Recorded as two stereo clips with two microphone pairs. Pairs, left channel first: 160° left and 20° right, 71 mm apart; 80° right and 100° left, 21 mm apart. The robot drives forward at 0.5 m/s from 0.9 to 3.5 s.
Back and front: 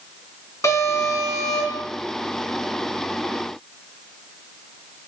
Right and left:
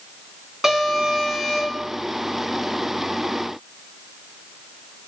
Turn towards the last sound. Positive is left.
turn(degrees=170)